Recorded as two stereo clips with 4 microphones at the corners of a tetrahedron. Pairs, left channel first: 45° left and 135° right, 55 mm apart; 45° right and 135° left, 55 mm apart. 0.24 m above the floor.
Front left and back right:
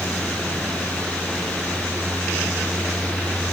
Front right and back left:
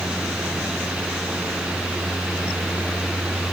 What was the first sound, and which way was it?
Only background noise.